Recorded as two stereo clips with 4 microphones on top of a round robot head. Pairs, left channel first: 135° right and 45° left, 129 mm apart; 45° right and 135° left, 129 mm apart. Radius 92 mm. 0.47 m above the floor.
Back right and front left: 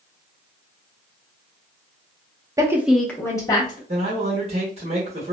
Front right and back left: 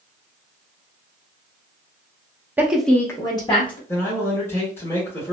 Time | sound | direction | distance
2.6 | a woman speaking | 75° left | 0.7 m
3.9 | a man speaking | 20° left | 1.4 m